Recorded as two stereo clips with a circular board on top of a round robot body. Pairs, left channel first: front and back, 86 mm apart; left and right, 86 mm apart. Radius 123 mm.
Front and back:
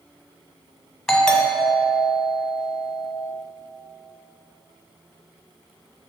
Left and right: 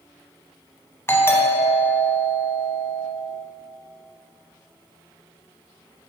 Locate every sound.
1.1 s a doorbell: 80° left, 1.3 m